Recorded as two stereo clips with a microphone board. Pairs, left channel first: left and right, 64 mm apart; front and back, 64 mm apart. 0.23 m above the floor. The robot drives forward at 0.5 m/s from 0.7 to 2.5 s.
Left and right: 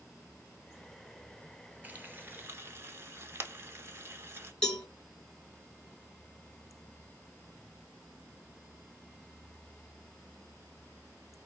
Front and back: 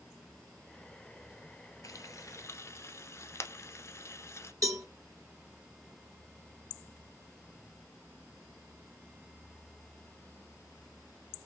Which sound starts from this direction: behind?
A cowbell, at 4.6 s.